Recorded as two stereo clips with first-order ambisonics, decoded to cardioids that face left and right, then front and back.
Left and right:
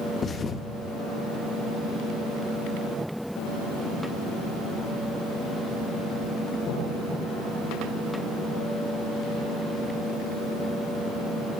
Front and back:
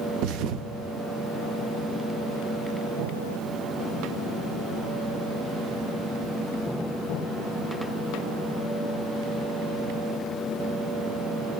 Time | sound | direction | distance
0.2 | a thud | 155° left | 0.6 m